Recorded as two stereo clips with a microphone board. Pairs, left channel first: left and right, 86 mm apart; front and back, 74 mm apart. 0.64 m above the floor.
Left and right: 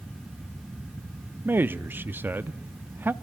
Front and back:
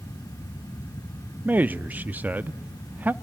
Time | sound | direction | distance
1.4 | a man speaking | 135° right | 0.7 m